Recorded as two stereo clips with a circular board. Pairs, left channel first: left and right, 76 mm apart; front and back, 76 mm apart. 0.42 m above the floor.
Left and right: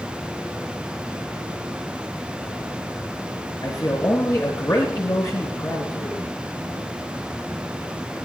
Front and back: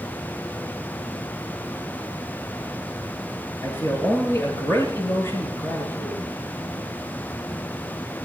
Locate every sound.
3.6 s a man speaking: 55° left, 7.5 m